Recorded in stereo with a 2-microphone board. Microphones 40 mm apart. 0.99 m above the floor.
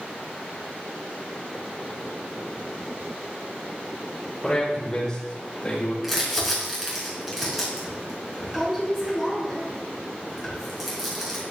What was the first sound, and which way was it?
A man speaking, 5° left (ahead or behind).